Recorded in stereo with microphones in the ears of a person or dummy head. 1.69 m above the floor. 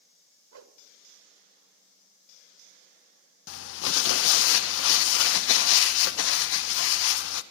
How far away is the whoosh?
About 0.9 m.